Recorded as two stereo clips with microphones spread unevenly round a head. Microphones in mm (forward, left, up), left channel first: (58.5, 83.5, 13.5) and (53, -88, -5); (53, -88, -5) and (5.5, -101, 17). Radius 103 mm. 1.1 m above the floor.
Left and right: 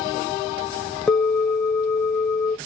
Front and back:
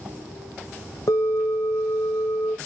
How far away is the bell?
About 1.3 m.